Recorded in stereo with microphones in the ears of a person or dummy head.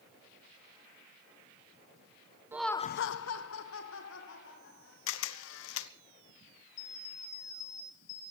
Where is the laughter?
10° right (ahead or behind), 0.6 m; by 5.0 s 60° left (ahead or behind), 3 m.